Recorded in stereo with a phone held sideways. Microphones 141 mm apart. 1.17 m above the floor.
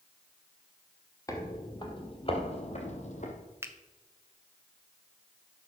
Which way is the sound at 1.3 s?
25° left (ahead or behind).